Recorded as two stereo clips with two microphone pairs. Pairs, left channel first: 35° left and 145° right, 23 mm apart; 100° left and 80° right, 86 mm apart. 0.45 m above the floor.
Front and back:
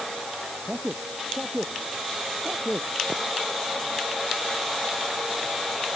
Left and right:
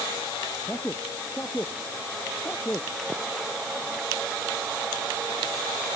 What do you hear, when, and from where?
0.7 s a man speaking: 170° left